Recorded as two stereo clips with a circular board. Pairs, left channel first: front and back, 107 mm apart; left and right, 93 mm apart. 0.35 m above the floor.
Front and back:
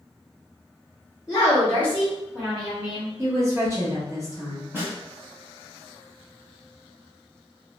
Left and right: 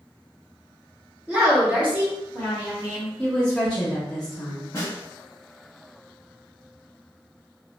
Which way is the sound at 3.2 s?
160° left.